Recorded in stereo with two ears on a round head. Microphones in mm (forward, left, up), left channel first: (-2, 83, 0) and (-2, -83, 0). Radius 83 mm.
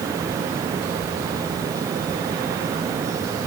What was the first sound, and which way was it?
Only background noise.